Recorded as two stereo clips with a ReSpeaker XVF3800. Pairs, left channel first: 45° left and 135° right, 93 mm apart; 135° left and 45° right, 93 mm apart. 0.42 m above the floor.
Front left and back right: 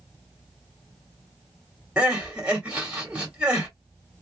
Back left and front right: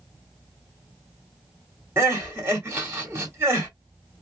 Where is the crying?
65° right, 1.6 m.